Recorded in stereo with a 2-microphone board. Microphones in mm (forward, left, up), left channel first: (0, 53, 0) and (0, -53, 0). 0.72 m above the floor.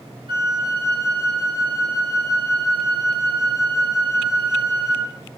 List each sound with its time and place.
0.3 s a flute: 55° right (ahead or behind), 4.5 m